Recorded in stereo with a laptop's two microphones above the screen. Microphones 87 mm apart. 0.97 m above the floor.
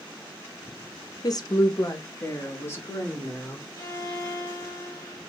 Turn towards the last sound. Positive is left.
turn(degrees=40)  # may be behind; listen again after turning